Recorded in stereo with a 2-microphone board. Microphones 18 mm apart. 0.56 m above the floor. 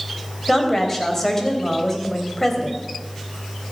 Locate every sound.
0.5 s a woman speaking: 15° left (ahead or behind), 3 m